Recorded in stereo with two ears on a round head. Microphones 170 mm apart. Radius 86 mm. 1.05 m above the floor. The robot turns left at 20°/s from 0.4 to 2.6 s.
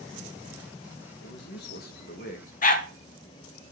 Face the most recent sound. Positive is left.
turn(degrees=45)  # may be behind; listen again after turning